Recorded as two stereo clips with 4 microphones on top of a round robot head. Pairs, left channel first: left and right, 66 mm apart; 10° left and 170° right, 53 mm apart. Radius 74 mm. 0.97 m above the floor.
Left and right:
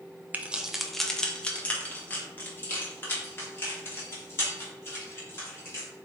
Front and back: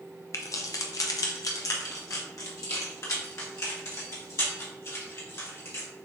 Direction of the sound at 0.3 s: 25° right.